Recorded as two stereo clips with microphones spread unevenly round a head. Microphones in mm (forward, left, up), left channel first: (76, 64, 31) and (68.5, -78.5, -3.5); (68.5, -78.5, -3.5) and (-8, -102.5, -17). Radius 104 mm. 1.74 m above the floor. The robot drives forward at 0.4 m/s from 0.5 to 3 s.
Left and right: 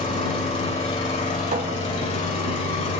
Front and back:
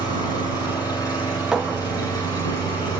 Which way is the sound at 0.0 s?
55° left.